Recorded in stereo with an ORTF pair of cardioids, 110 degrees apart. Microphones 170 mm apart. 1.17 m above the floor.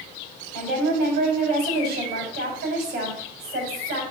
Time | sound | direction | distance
0.5 | a woman speaking | 70° right | 4 m